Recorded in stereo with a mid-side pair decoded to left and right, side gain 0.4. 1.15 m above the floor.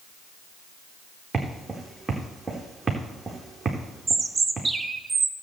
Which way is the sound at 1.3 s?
35° right.